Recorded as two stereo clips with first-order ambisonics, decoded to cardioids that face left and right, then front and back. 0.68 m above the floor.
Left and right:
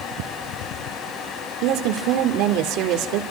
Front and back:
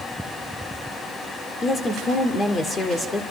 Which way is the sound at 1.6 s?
70° right.